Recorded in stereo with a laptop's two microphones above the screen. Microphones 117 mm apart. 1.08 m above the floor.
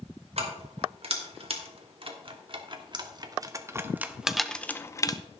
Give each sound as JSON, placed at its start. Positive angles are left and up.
{"t": 0.4, "sound": "keys jangling", "side_deg": -60, "distance_m": 2.5}